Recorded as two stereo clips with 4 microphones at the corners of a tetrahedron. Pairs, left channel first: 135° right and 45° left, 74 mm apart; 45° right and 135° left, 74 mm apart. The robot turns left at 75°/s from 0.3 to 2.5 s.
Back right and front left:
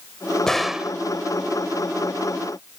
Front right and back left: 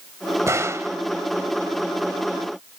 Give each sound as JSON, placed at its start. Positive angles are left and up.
{"t": 0.5, "sound": "a gunshot", "azimuth_deg": 145}